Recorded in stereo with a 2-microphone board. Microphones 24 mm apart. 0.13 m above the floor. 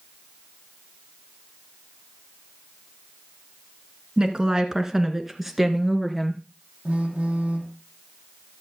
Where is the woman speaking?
35° right (ahead or behind), 1.6 m; by 6.4 s 5° left (ahead or behind), 2 m.